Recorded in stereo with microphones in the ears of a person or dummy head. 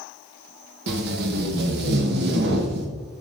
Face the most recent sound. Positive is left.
turn(degrees=-65)  # may be behind; listen again after turning